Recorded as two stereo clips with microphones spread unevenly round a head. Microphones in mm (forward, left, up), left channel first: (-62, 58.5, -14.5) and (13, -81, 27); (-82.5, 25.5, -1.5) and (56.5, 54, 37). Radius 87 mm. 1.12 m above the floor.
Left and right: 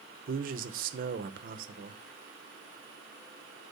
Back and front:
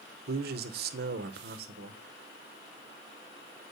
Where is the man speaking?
15° right, 0.8 m.